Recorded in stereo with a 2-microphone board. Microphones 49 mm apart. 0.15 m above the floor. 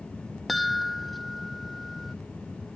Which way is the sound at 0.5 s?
Centre (ahead or behind).